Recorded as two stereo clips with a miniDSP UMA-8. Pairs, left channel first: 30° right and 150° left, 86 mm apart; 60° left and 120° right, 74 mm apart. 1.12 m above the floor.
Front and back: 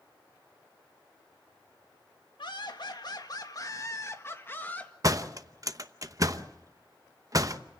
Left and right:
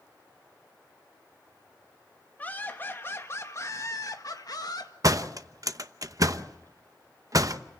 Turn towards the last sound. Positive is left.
turn(degrees=-160)